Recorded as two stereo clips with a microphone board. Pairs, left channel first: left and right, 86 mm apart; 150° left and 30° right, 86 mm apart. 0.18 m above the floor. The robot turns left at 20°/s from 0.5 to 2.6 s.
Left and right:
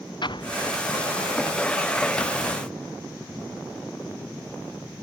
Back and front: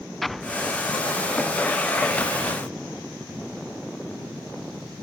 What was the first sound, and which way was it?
An explosion, 60° left.